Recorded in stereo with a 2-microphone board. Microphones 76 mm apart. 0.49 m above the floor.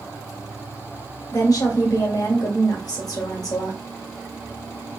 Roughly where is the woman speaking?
Left.